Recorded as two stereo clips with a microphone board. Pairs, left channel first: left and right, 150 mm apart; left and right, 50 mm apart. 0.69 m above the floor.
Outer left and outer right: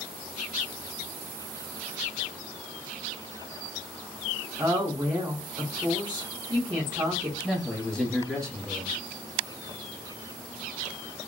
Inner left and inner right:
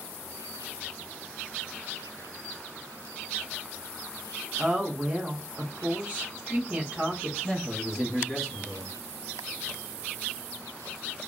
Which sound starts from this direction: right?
A woman speaking, at 4.6 s.